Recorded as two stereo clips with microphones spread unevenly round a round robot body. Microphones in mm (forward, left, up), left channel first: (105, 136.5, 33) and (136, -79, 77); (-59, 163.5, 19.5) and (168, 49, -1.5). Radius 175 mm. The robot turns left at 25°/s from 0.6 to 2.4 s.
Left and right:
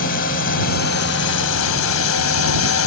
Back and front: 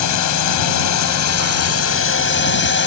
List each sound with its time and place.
0.0 s a drone: 155° left; by 2.9 s 110° left